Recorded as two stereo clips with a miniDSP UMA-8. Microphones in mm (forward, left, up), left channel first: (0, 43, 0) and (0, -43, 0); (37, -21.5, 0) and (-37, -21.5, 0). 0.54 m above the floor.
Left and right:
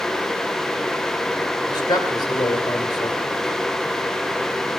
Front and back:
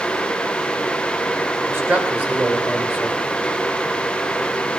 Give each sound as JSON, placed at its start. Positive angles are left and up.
{"t": 1.7, "sound": "a man speaking", "azimuth_deg": 125, "distance_m": 2.5}